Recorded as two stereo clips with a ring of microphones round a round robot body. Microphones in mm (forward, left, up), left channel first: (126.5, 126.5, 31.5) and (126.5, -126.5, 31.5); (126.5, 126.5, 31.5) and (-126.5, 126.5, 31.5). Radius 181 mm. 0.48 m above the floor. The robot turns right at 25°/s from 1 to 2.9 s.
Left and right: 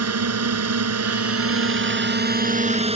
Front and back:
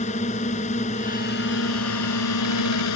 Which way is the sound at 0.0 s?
70° right.